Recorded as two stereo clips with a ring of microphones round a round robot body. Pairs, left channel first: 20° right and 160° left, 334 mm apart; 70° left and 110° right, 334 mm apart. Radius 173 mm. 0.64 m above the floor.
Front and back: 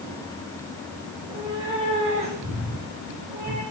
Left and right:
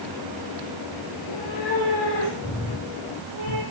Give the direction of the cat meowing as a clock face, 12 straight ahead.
10 o'clock.